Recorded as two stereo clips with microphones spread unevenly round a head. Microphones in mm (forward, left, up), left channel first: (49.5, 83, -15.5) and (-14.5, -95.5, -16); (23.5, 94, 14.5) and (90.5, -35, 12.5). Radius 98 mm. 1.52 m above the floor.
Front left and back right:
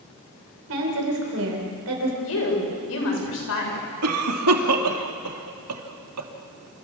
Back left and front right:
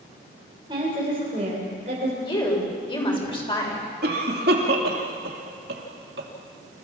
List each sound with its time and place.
0.7 s a woman speaking: 135° right, 6 m; by 2.1 s 120° right, 6 m
2.2 s a woman speaking: 60° left, 7.5 m
4.0 s a cough: 110° right, 3 m